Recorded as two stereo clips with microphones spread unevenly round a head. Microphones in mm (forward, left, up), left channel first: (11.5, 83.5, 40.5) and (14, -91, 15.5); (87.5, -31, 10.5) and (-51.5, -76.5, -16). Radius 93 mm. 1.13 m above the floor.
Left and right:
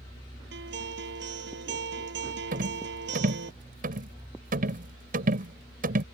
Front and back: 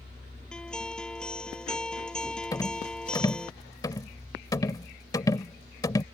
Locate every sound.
0.5 s a guitar: 65° right
2.5 s a rattle: 45° right